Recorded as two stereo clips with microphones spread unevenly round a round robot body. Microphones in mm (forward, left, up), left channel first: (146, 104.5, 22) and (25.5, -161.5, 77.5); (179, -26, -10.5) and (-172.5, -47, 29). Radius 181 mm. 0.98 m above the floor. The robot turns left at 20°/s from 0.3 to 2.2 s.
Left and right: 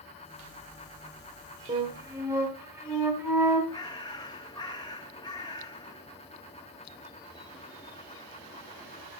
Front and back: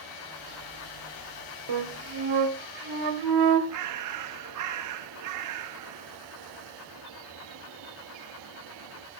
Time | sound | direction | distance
1.7 | a flute | straight behind | 1.1 m
3.7 | a bird | 150° left | 0.6 m